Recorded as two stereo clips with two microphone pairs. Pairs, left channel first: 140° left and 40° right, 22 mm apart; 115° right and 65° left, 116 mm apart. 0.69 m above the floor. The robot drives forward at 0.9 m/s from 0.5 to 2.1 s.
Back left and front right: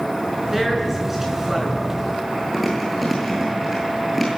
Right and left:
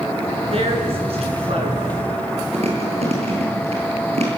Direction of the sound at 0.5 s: 35° left.